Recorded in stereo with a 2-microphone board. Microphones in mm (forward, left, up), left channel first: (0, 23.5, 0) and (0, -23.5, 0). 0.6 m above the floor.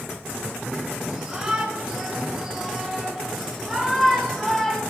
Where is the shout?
15° right (ahead or behind), 9 m; by 4.8 s 10° left (ahead or behind), 4.5 m.